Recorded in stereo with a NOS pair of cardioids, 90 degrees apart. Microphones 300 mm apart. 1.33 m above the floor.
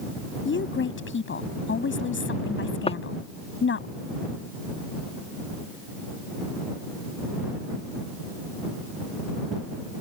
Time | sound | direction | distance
0.5 | a woman speaking | 40° left | ?
2.9 | footsteps | 20° left | ?